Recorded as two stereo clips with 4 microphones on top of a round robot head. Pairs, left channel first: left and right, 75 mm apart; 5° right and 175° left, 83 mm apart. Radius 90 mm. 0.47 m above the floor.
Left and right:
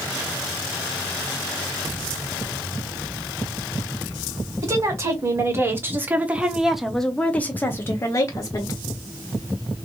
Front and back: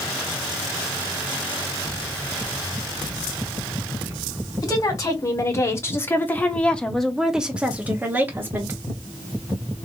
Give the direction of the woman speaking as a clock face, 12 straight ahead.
2 o'clock.